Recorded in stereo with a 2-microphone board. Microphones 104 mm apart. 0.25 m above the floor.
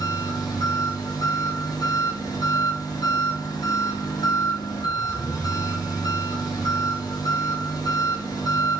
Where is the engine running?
40° left (ahead or behind), 5.5 m.